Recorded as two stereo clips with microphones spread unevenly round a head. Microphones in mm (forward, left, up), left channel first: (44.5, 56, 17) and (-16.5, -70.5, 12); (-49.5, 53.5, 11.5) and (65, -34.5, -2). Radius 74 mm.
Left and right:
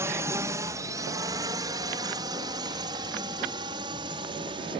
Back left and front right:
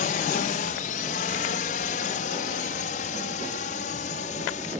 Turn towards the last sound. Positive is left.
turn(degrees=-175)